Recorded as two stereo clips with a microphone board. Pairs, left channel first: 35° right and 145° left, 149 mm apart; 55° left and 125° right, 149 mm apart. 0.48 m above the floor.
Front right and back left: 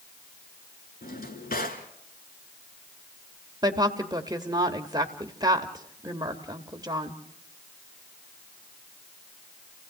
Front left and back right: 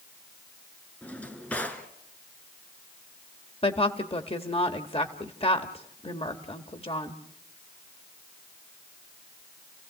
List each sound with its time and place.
1.0 s a drawer: 25° right, 2.0 m
3.6 s a woman speaking: 90° left, 1.5 m